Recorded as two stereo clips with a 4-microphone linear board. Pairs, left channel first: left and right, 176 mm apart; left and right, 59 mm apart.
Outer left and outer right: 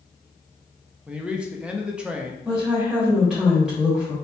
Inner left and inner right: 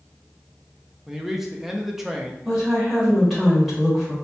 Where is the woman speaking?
5° right (ahead or behind), 1.5 m.